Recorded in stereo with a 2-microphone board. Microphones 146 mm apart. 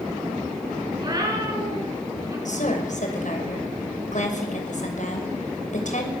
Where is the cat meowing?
30° right (ahead or behind), 7 m; by 2.4 s 25° right (ahead or behind), 8 m.